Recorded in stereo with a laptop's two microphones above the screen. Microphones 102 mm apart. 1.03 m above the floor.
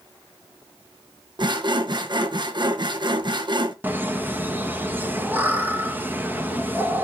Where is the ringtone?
No ringtone in this recording.